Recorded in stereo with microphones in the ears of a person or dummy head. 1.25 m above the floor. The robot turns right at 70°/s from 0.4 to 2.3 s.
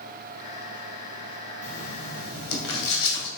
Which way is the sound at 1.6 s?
35° left.